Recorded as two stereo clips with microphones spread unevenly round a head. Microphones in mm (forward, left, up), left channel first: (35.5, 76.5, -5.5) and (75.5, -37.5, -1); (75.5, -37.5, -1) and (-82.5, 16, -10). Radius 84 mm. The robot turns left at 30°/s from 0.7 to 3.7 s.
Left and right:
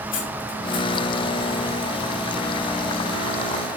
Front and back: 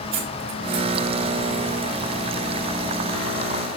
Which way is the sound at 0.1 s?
120° left.